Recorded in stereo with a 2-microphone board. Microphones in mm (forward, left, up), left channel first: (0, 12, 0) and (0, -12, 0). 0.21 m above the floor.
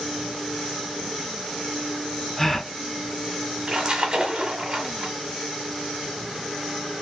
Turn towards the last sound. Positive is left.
turn(degrees=-30)  # may be behind; listen again after turning